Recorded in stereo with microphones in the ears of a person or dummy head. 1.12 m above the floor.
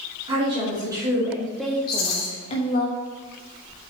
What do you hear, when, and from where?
0.3 s a woman speaking: 30° right (ahead or behind), 2.5 m; by 2.9 s 50° left (ahead or behind), 1.3 m
1.9 s a rattle: 50° left (ahead or behind), 2.0 m